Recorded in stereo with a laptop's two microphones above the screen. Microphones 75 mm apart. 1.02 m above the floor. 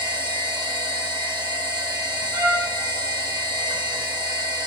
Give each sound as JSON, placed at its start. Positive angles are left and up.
{"t": 0.0, "sound": "a machine running", "side_deg": -80, "distance_m": 1.7}
{"t": 2.3, "sound": "a trumpet", "side_deg": -65, "distance_m": 5.0}